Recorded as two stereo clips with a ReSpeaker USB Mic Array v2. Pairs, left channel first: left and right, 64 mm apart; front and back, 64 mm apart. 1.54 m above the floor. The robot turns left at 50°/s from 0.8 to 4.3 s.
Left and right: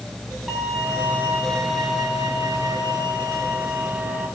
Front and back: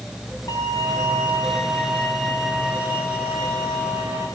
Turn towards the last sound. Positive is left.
turn(degrees=180)